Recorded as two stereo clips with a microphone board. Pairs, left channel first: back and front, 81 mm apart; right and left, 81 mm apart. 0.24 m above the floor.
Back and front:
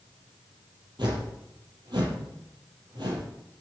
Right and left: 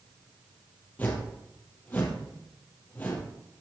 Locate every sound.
1.0 s a whoosh: 20° right, 4 m